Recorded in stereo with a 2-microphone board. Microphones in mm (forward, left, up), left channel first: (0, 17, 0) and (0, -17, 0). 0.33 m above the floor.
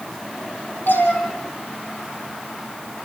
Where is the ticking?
I don't hear ticking.